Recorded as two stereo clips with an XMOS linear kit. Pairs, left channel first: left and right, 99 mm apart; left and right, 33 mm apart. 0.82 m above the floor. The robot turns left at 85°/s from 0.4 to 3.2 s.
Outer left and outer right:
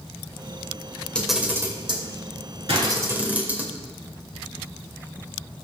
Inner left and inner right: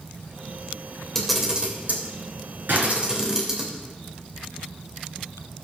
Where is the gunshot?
75° right (ahead or behind), 5 m; by 3.0 s 80° right, 5 m.